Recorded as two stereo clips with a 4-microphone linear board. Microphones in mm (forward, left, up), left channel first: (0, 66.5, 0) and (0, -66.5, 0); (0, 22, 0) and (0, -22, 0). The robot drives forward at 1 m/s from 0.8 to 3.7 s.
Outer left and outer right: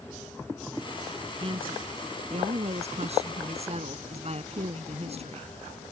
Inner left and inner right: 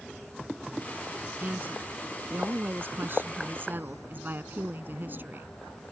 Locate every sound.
1.4 s a woman speaking: 40° right (ahead or behind); by 5.5 s 50° right (ahead or behind)